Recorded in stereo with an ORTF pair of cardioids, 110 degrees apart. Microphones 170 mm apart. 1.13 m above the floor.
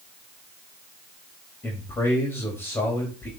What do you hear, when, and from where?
1.6 s a man speaking: 15° left, 2.5 m